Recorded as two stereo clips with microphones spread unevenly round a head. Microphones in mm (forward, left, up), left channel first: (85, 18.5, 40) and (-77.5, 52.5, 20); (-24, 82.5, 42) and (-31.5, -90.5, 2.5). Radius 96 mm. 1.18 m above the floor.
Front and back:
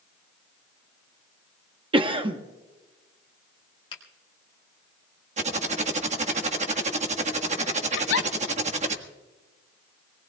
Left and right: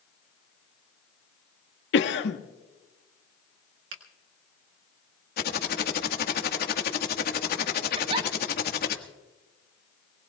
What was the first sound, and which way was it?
A cough, 110° left.